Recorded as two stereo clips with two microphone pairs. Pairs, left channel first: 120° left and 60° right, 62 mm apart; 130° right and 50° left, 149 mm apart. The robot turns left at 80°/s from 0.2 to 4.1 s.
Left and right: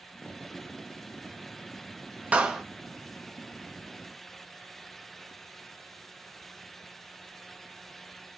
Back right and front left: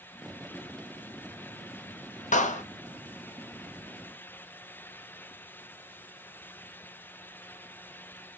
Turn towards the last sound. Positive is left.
turn(degrees=90)